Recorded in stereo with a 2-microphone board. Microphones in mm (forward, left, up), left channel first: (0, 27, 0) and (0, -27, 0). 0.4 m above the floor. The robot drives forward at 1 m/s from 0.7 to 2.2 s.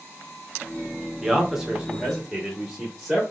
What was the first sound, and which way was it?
A man speaking, 10° right (ahead or behind).